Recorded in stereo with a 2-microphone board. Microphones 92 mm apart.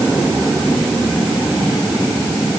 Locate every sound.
Only background noise.